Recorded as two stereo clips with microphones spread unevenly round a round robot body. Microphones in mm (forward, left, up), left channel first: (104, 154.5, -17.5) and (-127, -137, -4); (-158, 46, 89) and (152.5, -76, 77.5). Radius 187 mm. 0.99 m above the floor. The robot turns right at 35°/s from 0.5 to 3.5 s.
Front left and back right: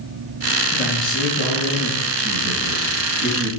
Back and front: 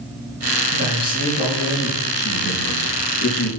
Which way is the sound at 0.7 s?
140° left.